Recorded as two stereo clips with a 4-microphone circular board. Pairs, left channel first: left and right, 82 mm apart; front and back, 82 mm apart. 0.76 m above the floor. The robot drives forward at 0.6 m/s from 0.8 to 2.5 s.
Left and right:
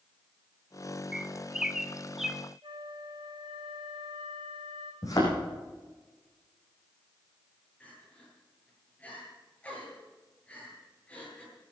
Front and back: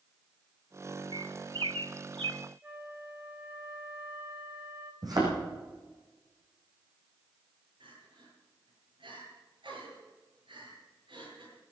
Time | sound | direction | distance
1.1 | a bird | 170° right | 0.7 m
2.6 | a flute | 110° right | 2.5 m
5.0 | a thud | 140° left | 7.5 m
7.8 | crying | 165° left | 9 m